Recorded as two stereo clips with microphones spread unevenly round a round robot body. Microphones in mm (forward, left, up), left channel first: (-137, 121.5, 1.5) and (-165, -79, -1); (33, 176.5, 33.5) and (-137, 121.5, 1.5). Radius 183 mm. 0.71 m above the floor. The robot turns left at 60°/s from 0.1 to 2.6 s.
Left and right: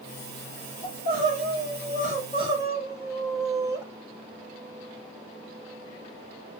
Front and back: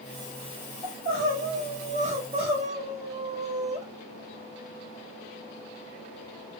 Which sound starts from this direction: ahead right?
Crying, at 0.8 s.